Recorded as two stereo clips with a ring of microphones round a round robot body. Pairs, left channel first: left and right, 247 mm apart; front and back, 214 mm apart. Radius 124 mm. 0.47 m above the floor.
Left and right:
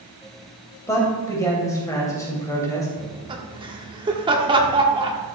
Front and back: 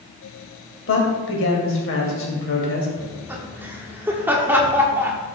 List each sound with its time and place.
0.9 s a man speaking: 15° left, 2.5 m
3.0 s laughter: 115° right, 1.2 m